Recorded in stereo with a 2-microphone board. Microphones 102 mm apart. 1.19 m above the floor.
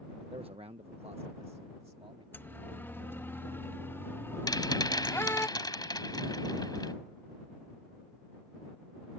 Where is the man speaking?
70° right (ahead or behind); by 2.2 s 75° right (ahead or behind).